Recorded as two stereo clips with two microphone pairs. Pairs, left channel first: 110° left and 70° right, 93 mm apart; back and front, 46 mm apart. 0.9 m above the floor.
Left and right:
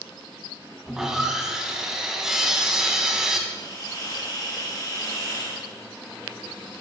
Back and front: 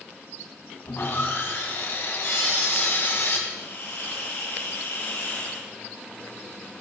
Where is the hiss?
155° left, 5 m.